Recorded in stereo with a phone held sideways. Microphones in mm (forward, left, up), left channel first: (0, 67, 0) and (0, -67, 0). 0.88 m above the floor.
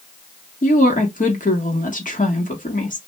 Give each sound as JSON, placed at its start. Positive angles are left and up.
{"t": 0.6, "sound": "a woman speaking", "side_deg": 75, "distance_m": 1.3}